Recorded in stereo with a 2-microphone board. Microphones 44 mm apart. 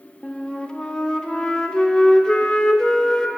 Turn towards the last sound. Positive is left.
turn(degrees=15)  # may be behind; listen again after turning